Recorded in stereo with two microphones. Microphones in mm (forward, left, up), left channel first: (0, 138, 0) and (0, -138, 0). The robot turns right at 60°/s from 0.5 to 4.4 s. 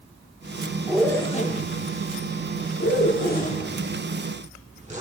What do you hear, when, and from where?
0.9 s a zipper: 5° right (ahead or behind), 1.1 m; by 5.0 s 25° right (ahead or behind), 1.1 m